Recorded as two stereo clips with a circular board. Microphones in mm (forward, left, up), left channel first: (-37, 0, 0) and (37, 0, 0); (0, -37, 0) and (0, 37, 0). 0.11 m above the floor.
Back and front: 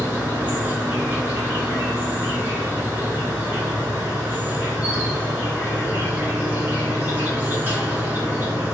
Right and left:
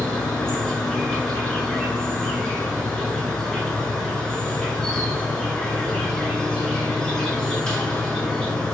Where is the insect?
25° right, 1.0 m.